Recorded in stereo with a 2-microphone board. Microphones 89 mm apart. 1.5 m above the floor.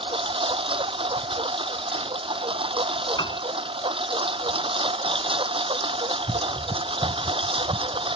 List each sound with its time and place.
0.0 s a lawn mower: 80° right
3.2 s a piano: 60° left (ahead or behind)